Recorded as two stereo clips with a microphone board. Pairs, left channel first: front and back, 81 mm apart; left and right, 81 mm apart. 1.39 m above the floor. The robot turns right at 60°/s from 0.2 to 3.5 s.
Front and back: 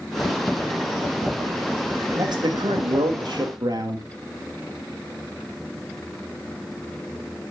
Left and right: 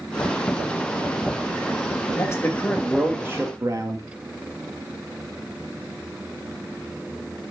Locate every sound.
2.1 s a man speaking: 140° left, 2.5 m; by 4.0 s 140° right, 2.5 m